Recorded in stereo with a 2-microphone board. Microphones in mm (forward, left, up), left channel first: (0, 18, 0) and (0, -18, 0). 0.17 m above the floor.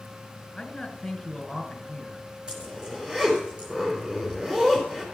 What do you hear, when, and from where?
0.6 s a man speaking: 10° left (ahead or behind), 1.9 m
2.5 s a zipper: 25° right (ahead or behind), 4 m